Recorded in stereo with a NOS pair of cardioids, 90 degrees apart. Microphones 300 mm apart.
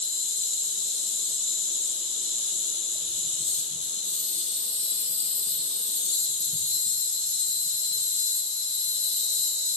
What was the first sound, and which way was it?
An insect, 20° left.